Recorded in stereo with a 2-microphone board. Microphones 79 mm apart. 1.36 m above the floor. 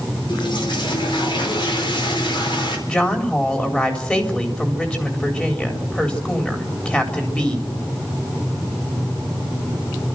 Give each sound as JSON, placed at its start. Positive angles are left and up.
{"t": 0.3, "sound": "a toilet flushing", "side_deg": 90, "distance_m": 4.5}
{"t": 2.9, "sound": "a woman speaking", "side_deg": 15, "distance_m": 4.0}